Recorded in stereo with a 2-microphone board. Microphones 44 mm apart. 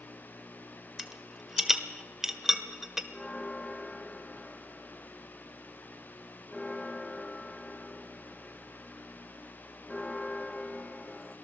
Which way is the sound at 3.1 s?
15° left (ahead or behind).